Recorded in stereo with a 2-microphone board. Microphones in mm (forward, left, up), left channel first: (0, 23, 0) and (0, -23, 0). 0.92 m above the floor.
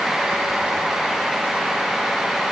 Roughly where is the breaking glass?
No breaking glass in this recording.